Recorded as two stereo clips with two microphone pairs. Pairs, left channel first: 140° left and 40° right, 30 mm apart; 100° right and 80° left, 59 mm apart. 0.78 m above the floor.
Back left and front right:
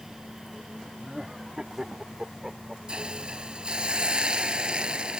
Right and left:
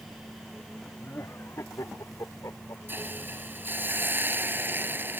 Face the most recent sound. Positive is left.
turn(degrees=25)